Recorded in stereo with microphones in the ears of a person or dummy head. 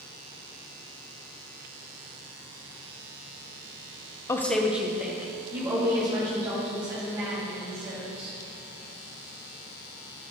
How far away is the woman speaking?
About 0.7 m.